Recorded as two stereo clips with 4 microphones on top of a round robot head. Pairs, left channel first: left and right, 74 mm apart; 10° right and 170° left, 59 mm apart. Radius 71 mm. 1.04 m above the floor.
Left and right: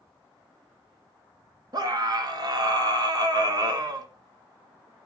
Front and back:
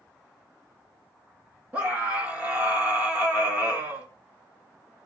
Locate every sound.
1.7 s a scream: 120° right, 2 m